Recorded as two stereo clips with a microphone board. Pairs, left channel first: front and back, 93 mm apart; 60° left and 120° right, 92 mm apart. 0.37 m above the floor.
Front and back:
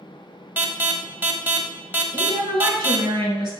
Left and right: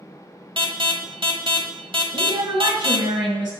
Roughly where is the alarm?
Behind right.